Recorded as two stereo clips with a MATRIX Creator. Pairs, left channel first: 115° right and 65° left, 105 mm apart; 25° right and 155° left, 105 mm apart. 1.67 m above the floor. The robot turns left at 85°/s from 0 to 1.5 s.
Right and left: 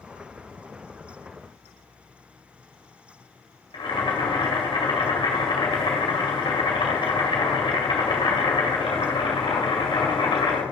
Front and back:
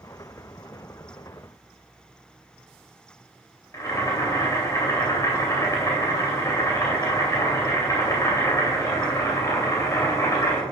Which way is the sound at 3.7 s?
80° right.